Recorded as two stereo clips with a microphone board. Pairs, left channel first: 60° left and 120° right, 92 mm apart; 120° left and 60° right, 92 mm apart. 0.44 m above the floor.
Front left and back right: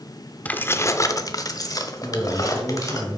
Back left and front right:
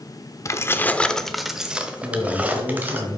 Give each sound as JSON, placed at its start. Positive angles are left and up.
{"t": 0.5, "sound": "keys jangling", "azimuth_deg": 120, "distance_m": 0.5}
{"t": 2.0, "sound": "a man speaking", "azimuth_deg": -35, "distance_m": 3.0}